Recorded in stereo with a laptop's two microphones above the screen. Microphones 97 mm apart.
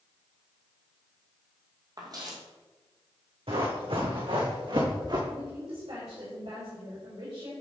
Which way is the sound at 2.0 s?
45° right (ahead or behind).